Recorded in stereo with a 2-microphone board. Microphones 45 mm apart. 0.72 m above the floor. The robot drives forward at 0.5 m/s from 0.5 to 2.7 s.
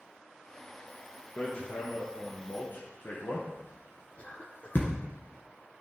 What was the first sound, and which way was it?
Hammering, 35° left (ahead or behind).